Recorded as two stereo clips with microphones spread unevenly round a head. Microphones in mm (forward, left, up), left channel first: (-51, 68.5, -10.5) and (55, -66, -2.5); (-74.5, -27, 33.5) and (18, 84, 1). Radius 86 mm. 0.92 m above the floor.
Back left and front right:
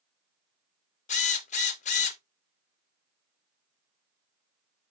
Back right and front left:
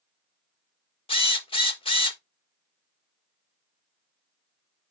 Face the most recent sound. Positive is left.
turn(degrees=175)